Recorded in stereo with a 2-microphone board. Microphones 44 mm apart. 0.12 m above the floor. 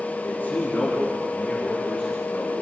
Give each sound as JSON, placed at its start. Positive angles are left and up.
{"t": 0.2, "sound": "a man speaking", "side_deg": 40, "distance_m": 7.0}